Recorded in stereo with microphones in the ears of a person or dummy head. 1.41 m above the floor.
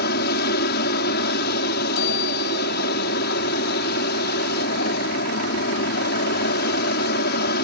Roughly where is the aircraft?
Left.